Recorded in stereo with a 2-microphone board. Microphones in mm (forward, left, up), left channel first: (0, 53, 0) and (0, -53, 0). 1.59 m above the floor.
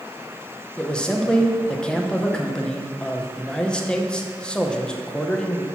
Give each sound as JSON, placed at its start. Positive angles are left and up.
{"t": 0.8, "sound": "a man speaking", "side_deg": 10, "distance_m": 0.9}